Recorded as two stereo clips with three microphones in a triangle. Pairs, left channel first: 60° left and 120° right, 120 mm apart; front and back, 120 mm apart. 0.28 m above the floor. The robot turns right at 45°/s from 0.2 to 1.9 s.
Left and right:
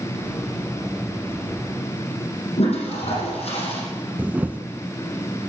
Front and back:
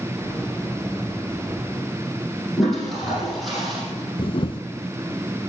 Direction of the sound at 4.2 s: 45° right.